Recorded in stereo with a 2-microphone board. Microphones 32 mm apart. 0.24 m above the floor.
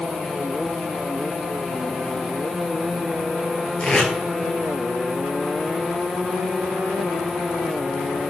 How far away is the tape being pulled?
About 1.2 m.